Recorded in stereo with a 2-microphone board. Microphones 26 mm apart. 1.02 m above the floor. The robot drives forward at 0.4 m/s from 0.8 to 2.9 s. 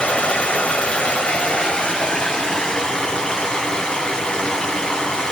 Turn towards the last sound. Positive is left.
turn(degrees=30)  # may be behind; listen again after turning